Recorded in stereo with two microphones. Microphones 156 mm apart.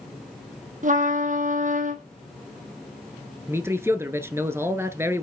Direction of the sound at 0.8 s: 55° right (ahead or behind).